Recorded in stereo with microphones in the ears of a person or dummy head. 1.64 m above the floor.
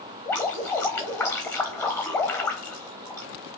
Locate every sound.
0.2 s dripping: 5° left (ahead or behind), 0.9 m